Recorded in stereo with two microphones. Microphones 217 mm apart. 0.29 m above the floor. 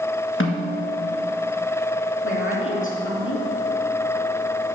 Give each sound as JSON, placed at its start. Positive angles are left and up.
{"t": 0.4, "sound": "a snare drum", "side_deg": 70, "distance_m": 1.9}
{"t": 2.2, "sound": "a woman speaking", "side_deg": 70, "distance_m": 3.5}